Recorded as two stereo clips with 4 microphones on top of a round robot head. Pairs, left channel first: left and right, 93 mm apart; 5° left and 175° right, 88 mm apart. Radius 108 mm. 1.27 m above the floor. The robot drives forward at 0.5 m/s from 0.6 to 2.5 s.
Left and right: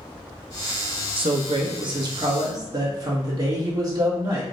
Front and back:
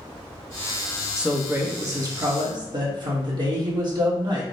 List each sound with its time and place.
1.2 s a man speaking: 90° right, 0.7 m; by 4.4 s 140° right, 1.0 m